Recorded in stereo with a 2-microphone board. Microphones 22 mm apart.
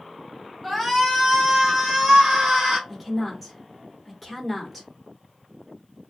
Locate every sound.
0.6 s a shout: 5° right (ahead or behind), 1.3 m; by 2.8 s 40° right (ahead or behind), 1.5 m
2.9 s a woman speaking: 5° right (ahead or behind), 1.3 m